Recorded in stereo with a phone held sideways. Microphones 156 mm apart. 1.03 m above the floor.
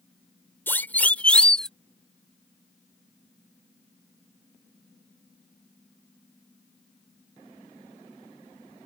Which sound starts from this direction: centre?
A siren, at 0.7 s.